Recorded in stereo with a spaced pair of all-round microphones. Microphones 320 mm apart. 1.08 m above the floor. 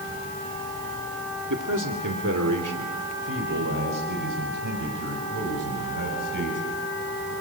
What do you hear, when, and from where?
1.5 s a man speaking: 60° right (ahead or behind), 1.9 m; by 7.3 s 70° right (ahead or behind), 6 m